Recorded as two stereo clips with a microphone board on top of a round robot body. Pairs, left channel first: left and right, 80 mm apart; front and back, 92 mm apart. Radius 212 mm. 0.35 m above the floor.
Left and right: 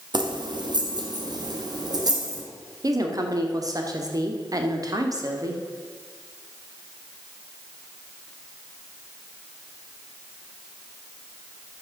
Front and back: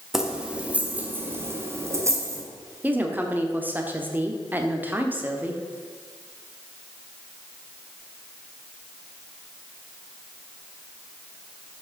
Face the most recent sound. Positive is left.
turn(degrees=-115)